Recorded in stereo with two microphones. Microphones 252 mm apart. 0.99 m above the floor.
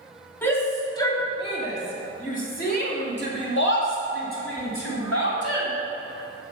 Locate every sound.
0.4 s a shout: 10° left (ahead or behind), 2.5 m; by 5.7 s 65° left (ahead or behind), 3.5 m